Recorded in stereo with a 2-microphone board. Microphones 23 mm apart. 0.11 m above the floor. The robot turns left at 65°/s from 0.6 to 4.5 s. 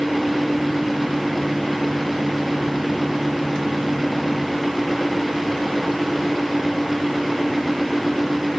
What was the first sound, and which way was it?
Only background noise.